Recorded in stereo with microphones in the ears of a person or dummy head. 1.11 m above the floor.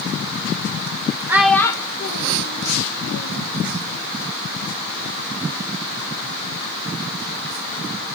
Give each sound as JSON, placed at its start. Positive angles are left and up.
{"t": 1.3, "sound": "a child speaking", "side_deg": -10, "distance_m": 0.7}